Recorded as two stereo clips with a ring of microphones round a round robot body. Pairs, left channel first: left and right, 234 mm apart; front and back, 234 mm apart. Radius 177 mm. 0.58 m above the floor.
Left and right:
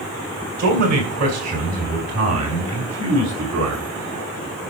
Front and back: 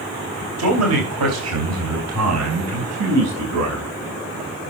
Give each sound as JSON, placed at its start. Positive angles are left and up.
{"t": 0.6, "sound": "a man speaking", "azimuth_deg": -145, "distance_m": 3.5}